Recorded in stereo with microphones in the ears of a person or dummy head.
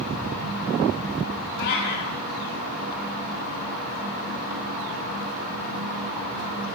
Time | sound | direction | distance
1.6 | a cat meowing | 55° left (ahead or behind) | 1.6 m